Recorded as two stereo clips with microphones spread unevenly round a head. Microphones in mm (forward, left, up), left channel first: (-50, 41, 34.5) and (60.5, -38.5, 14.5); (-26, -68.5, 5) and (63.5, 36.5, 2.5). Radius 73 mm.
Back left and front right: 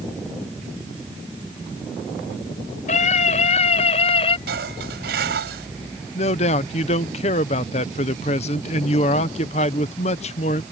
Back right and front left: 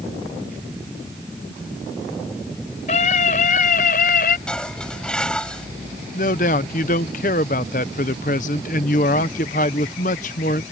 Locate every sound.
2.9 s a scream: 175° right; by 4.4 s 165° right
4.5 s dishes clattering: 45° right
6.2 s a man speaking: 170° right